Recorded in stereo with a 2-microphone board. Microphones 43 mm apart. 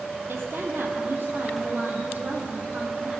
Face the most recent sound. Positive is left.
turn(degrees=-30)  # may be behind; listen again after turning